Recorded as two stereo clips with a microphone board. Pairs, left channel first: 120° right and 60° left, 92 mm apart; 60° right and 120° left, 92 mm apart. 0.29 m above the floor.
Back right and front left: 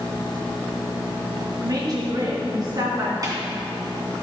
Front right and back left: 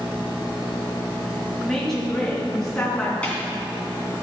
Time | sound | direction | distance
1.6 | a woman speaking | 25° left | 2.5 m
3.2 | a snare drum | 15° left | 2.5 m